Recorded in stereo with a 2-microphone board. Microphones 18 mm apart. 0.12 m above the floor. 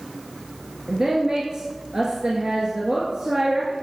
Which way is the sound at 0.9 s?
40° right (ahead or behind).